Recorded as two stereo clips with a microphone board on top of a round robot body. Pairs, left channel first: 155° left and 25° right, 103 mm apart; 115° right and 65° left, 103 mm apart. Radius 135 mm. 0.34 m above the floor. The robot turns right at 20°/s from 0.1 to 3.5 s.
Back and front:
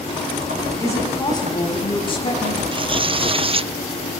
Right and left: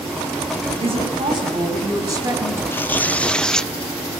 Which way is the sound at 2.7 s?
45° right.